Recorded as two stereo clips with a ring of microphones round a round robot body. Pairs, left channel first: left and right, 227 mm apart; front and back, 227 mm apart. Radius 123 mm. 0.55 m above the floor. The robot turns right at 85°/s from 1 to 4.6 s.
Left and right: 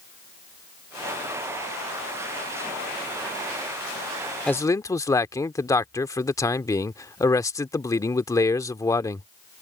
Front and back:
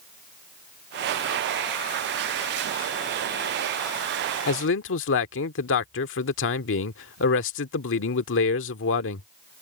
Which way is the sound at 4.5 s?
5° left.